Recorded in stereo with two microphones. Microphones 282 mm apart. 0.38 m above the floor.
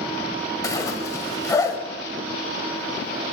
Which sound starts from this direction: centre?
A zipper, at 0.6 s.